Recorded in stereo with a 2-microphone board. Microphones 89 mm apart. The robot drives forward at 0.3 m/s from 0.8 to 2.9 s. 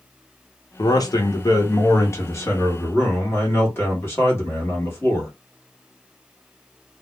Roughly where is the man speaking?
Left.